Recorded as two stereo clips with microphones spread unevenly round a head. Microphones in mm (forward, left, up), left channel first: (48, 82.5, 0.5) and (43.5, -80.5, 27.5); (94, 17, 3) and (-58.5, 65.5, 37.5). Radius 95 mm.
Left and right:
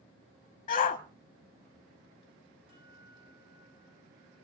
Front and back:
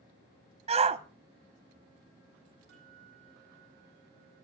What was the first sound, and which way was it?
A shout, 110° left.